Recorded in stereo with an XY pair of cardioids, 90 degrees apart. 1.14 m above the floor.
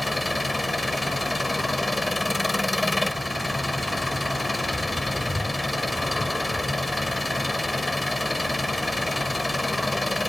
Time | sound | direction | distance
0.0 | an engine running | 10° left | ?